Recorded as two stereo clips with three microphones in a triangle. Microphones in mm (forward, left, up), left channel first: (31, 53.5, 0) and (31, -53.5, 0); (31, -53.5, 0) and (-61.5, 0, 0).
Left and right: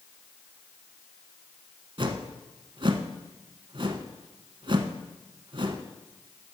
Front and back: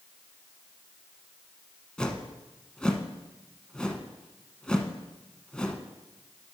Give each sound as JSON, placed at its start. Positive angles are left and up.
{"t": 2.0, "sound": "a whoosh", "azimuth_deg": -115, "distance_m": 0.9}